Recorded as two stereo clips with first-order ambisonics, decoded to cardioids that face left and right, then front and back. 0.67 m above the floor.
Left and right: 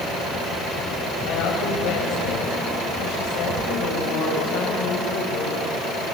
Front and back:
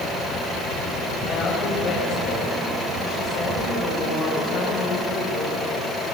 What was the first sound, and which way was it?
A woman speaking, 65° left.